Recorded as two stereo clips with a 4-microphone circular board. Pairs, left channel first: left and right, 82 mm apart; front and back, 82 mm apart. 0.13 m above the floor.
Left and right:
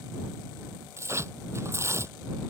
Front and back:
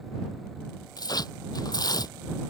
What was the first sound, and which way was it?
Tearing paper, 35° right.